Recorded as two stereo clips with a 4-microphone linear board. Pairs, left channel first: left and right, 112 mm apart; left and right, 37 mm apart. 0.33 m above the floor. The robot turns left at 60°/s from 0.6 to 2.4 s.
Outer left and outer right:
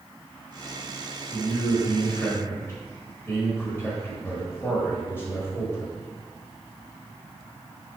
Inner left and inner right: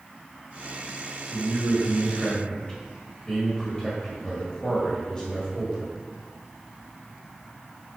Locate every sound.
1.3 s a man speaking: 15° right (ahead or behind), 1.6 m; by 5.9 s 20° left (ahead or behind), 1.6 m